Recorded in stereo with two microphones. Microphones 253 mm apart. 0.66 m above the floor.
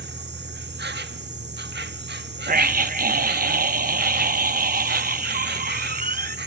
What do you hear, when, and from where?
0.0 s an insect: 45° right (ahead or behind), 0.8 m
2.5 s a scream: 35° right (ahead or behind), 0.7 m